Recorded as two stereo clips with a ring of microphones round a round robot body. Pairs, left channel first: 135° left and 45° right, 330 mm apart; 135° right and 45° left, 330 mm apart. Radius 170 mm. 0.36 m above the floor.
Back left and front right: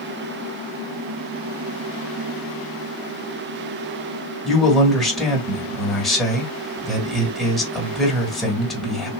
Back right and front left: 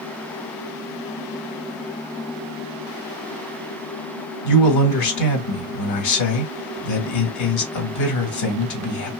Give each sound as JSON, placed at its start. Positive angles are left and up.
{"t": 4.5, "sound": "a man speaking", "azimuth_deg": -135, "distance_m": 1.4}